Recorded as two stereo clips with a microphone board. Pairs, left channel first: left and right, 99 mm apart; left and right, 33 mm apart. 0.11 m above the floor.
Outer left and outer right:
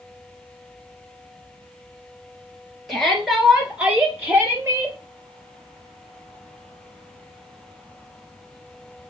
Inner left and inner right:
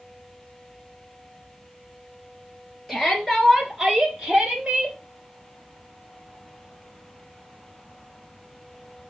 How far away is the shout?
About 2.5 m.